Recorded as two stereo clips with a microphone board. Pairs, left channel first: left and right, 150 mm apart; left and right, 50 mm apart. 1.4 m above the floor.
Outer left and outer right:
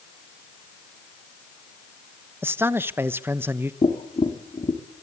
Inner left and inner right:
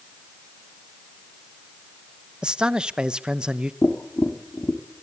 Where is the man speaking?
15° right (ahead or behind), 1.0 m.